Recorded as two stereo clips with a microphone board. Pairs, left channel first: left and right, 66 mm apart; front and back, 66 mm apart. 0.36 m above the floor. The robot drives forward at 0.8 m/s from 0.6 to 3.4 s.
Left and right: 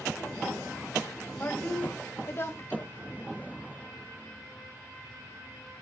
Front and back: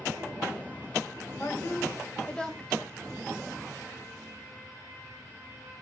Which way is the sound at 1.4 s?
40° left.